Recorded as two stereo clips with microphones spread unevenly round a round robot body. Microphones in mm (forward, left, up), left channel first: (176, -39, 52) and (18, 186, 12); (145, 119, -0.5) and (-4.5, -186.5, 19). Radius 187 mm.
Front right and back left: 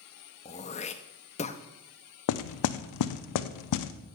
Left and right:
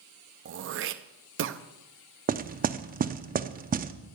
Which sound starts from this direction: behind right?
Throat clearing, at 0.5 s.